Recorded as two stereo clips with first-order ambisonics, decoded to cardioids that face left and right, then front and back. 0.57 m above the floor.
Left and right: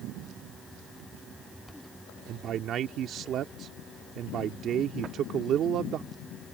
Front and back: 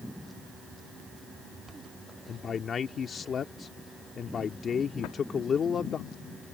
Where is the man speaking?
55° right.